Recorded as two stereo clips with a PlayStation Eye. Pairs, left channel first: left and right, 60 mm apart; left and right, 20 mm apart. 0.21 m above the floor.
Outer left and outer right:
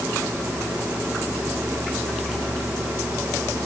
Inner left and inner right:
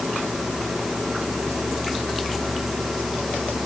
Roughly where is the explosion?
No explosion in this recording.